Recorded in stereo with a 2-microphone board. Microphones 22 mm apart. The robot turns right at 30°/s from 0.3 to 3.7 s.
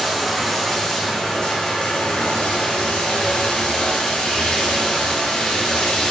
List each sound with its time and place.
0.0 s running water: 25° left, 2.5 m; by 6.1 s 125° left, 2.5 m